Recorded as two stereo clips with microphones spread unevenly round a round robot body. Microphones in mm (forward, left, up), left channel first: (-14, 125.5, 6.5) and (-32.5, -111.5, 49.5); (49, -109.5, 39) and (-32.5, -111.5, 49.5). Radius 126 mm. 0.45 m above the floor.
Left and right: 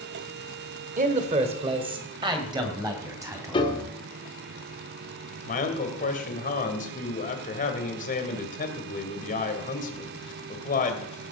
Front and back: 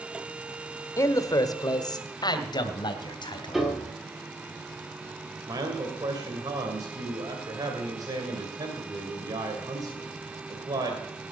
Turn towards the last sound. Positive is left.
turn(degrees=130)